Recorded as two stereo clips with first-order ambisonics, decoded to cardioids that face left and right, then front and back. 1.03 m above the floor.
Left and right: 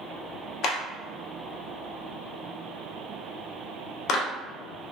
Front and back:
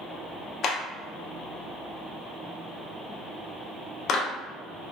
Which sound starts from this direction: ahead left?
A clap, at 0.6 s.